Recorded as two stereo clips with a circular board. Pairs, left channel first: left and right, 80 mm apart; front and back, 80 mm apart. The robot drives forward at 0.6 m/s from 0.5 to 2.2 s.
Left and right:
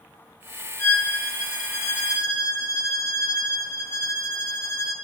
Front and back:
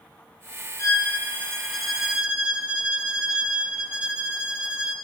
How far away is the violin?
About 1.2 m.